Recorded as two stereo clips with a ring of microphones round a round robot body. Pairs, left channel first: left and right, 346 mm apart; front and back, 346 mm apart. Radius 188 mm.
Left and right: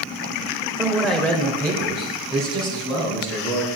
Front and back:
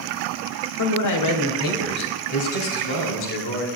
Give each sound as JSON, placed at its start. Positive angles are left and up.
{"t": 0.8, "sound": "a man speaking", "azimuth_deg": -5, "distance_m": 1.2}